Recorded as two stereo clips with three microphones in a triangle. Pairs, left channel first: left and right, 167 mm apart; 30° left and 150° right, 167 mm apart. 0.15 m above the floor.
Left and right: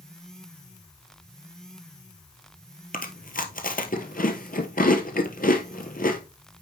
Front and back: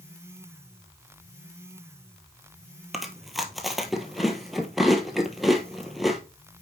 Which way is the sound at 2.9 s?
120° left.